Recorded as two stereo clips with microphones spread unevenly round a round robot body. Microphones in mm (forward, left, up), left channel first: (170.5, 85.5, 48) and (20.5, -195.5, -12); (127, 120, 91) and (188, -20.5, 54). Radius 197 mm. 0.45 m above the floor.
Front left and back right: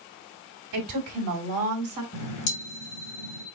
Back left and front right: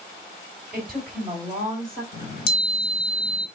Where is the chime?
125° left, 1.7 m.